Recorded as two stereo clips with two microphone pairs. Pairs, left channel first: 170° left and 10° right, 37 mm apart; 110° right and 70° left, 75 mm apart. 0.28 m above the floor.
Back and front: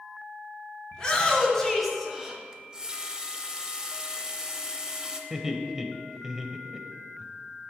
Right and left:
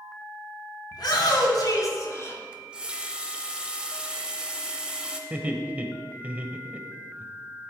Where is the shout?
120° right, 3 m; by 2.4 s 70° right, 1.6 m.